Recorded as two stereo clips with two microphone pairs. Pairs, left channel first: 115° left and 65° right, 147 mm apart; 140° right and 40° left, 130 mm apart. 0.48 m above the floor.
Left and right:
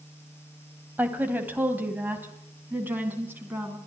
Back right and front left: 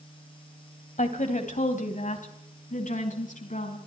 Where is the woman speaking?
140° right, 3 m.